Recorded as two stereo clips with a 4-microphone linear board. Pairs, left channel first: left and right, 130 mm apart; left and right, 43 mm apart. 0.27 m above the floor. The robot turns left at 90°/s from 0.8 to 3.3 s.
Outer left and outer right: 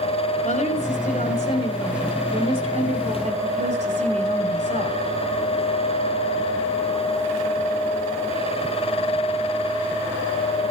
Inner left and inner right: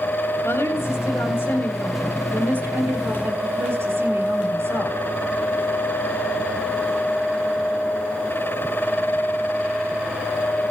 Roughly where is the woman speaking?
Behind left.